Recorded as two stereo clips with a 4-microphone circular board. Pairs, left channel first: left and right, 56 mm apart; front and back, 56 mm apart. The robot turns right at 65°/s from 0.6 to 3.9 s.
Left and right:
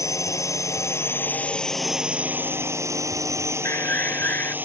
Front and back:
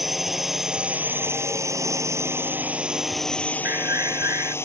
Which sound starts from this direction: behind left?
An alarm, at 3.6 s.